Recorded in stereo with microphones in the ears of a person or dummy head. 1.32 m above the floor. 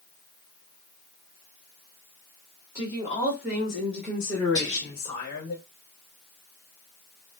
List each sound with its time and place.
2.8 s a woman speaking: 15° right (ahead or behind), 1.7 m; by 5.5 s 40° left (ahead or behind), 0.9 m
4.5 s whispering: 20° left (ahead or behind), 1.9 m